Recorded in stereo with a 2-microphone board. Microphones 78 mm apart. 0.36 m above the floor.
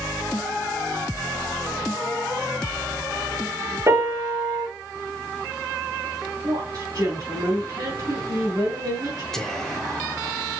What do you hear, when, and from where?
3.9 s a piano: 35° right (ahead or behind), 4 m
6.4 s a woman speaking: 45° right (ahead or behind), 3.5 m
9.3 s whispering: 5° left (ahead or behind), 0.9 m